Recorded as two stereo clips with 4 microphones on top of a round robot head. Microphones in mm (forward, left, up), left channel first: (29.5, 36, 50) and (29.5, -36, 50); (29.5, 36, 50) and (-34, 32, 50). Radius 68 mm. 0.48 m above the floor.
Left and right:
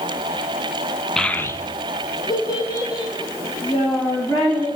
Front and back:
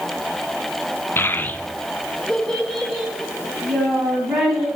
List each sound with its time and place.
1.2 s a child speaking: 10° left, 0.5 m; by 4.7 s 95° left, 3 m